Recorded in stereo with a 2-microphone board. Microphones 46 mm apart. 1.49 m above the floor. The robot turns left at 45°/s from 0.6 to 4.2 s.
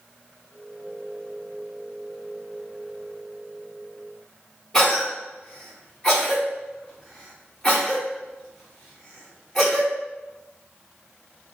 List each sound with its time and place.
4.7 s a cough: 20° left (ahead or behind), 1.1 m